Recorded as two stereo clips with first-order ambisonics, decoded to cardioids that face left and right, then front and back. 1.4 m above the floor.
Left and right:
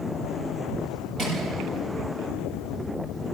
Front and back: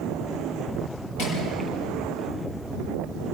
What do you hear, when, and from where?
1.2 s crushing: 25° right, 7 m